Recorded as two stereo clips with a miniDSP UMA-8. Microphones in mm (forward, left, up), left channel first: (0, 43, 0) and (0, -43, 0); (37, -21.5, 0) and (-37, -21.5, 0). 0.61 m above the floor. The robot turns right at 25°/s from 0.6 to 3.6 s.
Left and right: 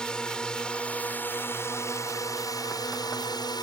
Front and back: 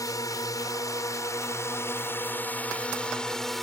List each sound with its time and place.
0.0 s a drone: 10° left; by 3.6 s 85° left